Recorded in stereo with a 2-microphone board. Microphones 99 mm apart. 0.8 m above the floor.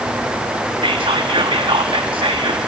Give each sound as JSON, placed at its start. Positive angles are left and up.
{"t": 0.8, "sound": "whispering", "side_deg": -60, "distance_m": 0.9}